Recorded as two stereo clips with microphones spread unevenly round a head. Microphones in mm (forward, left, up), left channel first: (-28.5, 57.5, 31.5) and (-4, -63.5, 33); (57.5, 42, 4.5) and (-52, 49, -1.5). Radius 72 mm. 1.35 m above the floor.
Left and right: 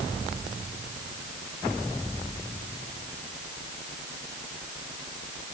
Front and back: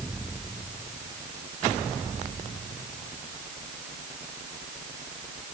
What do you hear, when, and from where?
Only background noise.